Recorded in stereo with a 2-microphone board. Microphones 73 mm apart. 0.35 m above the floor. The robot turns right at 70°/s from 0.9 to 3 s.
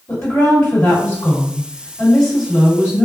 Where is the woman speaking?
80° left, 1.7 m; by 3.1 s 135° right, 1.7 m.